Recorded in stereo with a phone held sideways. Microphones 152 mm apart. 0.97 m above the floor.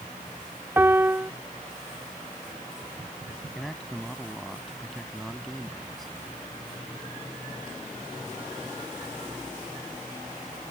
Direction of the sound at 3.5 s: Centre (ahead or behind).